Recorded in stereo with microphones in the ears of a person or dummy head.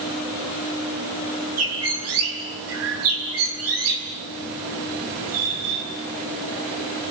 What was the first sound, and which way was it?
A bird, 75° right (ahead or behind).